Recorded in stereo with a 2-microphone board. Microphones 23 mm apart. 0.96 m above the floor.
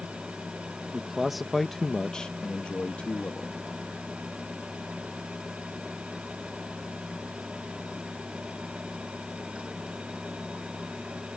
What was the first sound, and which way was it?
A man speaking, 20° right (ahead or behind).